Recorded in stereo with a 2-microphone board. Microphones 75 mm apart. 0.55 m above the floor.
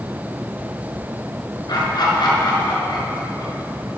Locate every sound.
1.7 s laughter: 60° left (ahead or behind), 6.5 m